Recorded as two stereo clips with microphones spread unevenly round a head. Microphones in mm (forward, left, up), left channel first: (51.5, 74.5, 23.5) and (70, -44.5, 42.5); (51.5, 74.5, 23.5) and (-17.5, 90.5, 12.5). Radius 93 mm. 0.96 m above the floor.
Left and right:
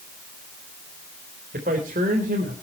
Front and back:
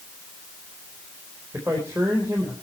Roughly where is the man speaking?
Behind right.